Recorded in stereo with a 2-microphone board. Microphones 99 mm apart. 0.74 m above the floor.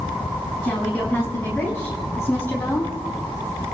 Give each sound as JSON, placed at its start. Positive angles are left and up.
{"t": 0.6, "sound": "a woman speaking", "side_deg": 5, "distance_m": 5.5}